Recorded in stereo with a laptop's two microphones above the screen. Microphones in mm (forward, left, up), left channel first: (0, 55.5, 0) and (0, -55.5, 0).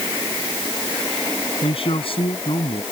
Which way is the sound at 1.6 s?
55° left (ahead or behind).